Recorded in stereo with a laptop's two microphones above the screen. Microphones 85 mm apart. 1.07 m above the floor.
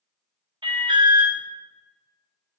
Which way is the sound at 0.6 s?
65° right (ahead or behind).